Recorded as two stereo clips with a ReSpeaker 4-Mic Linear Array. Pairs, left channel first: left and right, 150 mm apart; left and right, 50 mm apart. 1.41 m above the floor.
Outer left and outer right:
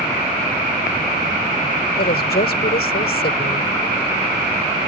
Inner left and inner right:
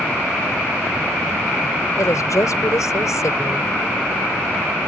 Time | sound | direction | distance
2.0 | a woman speaking | 85° left | ?